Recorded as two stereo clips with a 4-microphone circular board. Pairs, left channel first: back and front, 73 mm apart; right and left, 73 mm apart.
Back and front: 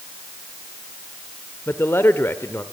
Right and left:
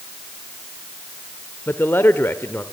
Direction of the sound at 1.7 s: 135° right.